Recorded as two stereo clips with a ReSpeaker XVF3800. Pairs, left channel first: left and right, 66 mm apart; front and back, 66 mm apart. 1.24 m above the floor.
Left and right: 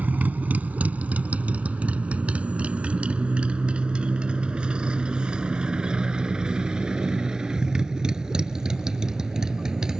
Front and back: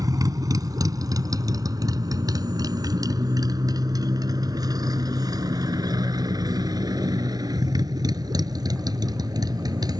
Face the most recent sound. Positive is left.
turn(degrees=-170)